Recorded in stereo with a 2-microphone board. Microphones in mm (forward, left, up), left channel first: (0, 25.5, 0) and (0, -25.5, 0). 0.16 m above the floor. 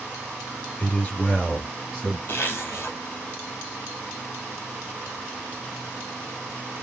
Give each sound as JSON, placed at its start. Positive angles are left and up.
{"t": 0.8, "sound": "a man speaking", "side_deg": 30, "distance_m": 3.5}
{"t": 2.3, "sound": "a zipper", "side_deg": 45, "distance_m": 2.5}